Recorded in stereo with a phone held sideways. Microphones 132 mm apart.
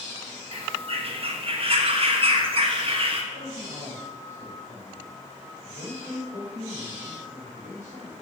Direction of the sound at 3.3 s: 65° left (ahead or behind).